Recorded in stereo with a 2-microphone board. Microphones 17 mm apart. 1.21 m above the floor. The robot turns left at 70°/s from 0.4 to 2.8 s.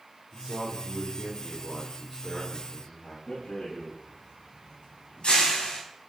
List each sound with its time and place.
0.3 s a man speaking: 80° right, 5 m; by 3.2 s 110° left, 5 m
3.3 s a rattle: 75° left (ahead or behind), 10 m